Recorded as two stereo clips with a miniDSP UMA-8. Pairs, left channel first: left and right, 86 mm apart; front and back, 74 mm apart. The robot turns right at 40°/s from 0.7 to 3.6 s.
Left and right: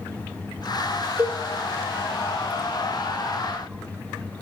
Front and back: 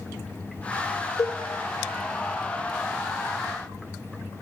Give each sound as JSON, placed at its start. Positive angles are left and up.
{"t": 1.2, "sound": "a cowbell", "azimuth_deg": -30, "distance_m": 1.1}